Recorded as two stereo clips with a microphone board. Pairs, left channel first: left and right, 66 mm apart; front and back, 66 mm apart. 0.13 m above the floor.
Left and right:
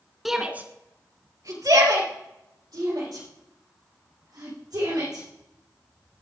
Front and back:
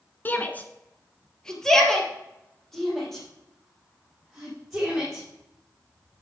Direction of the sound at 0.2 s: 5° right.